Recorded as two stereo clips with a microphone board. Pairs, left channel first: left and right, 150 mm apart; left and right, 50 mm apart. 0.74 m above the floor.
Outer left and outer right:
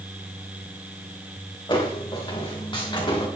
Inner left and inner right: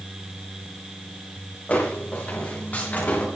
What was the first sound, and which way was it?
Footsteps, 30° left (ahead or behind).